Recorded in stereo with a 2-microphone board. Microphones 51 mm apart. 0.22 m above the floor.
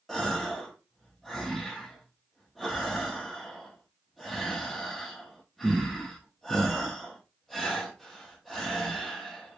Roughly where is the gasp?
Centre.